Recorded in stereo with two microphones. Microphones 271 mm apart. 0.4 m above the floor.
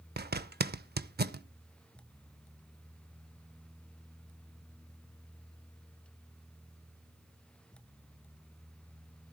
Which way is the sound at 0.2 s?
35° right (ahead or behind).